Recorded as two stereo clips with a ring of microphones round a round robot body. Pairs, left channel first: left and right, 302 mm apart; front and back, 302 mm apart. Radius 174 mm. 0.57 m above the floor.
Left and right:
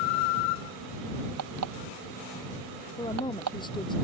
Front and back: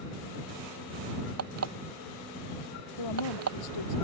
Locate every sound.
1.4 s an alarm clock: 140° right
3.0 s a woman speaking: 15° left